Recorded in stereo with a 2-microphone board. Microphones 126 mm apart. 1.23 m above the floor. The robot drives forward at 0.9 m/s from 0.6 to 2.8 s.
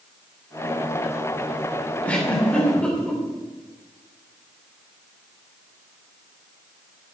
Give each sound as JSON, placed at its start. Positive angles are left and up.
{"t": 2.0, "sound": "a giggle", "side_deg": 10, "distance_m": 3.5}